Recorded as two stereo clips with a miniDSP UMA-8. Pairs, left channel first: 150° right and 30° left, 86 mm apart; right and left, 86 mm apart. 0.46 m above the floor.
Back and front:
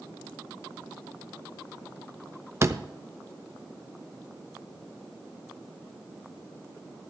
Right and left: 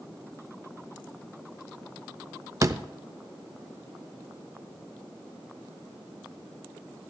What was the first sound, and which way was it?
A door slam, 65° left.